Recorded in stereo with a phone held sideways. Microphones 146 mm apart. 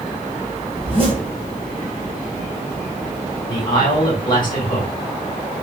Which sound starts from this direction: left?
A man speaking, at 3.5 s.